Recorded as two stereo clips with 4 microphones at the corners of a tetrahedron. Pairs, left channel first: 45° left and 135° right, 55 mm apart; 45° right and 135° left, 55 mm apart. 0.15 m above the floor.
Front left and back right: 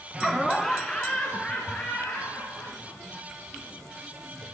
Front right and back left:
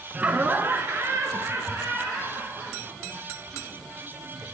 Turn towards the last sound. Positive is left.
turn(degrees=105)